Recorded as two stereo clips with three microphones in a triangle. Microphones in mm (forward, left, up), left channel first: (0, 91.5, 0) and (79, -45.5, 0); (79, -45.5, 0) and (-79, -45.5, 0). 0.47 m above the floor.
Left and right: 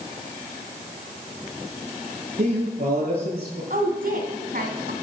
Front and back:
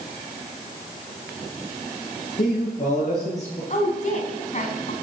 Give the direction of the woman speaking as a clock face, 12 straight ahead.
1 o'clock.